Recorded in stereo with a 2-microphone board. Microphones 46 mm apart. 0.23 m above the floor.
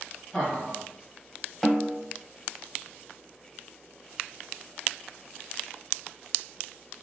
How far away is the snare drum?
About 0.7 m.